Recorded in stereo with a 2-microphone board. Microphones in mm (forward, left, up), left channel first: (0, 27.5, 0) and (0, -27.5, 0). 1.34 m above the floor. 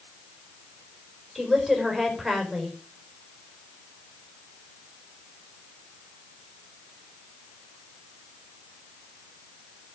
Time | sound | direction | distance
1.4 | a woman speaking | 5° right (ahead or behind) | 4.5 m